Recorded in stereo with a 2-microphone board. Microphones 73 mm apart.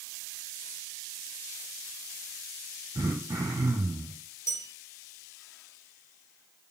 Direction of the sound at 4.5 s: 40° left (ahead or behind).